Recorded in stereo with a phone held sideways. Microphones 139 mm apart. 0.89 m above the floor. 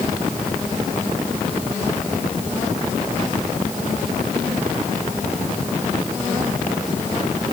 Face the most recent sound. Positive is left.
No sound to turn to.